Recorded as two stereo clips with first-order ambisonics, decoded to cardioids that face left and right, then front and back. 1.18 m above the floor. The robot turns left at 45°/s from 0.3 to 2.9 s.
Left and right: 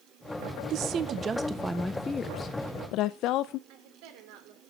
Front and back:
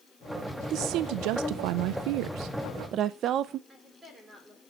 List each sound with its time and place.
0.7 s a woman speaking: 135° right, 0.5 m; by 3.6 s 130° left, 0.5 m
3.7 s a woman speaking: 105° right, 3 m